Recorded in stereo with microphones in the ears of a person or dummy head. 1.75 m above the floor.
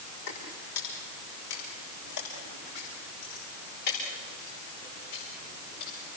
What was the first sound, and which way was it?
Footsteps, 75° left (ahead or behind).